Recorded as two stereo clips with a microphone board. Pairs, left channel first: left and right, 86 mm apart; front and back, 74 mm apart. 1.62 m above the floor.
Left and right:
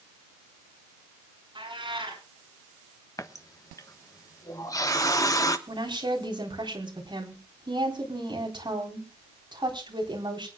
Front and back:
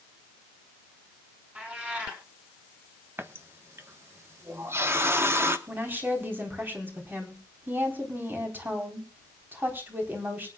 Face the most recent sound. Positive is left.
turn(degrees=-120)